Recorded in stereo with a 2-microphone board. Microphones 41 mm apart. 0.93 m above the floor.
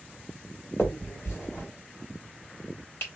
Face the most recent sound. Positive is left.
turn(degrees=60)  # may be behind; listen again after turning